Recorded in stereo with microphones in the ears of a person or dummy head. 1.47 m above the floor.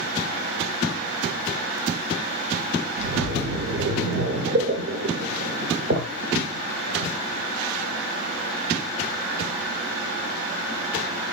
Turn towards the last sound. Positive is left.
turn(degrees=-50)  # may be behind; listen again after turning